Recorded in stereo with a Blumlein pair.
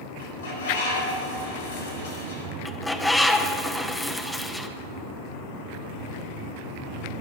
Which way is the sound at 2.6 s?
5° left.